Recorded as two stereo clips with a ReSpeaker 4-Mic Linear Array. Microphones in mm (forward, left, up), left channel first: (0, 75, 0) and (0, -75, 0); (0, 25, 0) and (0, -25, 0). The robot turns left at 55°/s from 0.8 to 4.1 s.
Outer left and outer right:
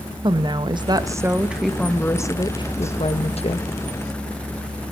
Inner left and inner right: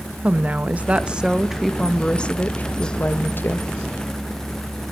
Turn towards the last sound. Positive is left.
turn(degrees=50)